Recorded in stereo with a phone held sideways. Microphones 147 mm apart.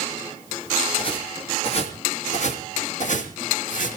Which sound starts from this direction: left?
Footsteps, at 1.0 s.